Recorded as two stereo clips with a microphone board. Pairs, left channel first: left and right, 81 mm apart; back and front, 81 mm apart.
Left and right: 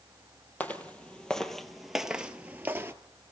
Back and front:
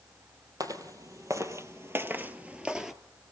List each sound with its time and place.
0.6 s footsteps: 25° left, 1.9 m; by 2.9 s 80° right, 1.3 m